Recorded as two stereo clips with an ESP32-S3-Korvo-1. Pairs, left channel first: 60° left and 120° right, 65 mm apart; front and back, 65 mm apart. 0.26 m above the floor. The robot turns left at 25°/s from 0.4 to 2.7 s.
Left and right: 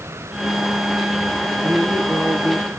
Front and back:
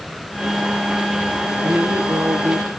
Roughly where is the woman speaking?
Behind.